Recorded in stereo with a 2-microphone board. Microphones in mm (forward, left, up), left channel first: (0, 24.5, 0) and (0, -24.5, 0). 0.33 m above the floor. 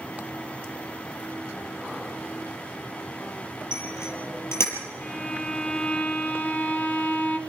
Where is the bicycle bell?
65° left (ahead or behind), 6 m.